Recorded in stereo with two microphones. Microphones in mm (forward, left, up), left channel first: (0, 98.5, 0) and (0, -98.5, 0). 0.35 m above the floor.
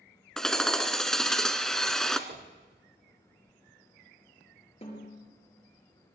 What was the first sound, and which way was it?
Hammering, 5° left (ahead or behind).